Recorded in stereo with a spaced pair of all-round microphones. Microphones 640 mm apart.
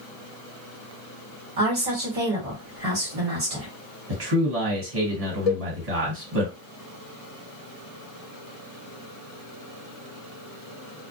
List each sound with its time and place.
1.6 s a woman speaking: 60° right (ahead or behind), 1.4 m
4.1 s a man speaking: 65° right (ahead or behind), 1.4 m
5.5 s a cowbell: 70° left (ahead or behind), 0.7 m